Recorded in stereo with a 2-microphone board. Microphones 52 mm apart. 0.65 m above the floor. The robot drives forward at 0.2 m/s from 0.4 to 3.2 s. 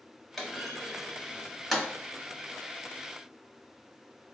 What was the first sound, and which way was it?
A clunk, 5° left (ahead or behind).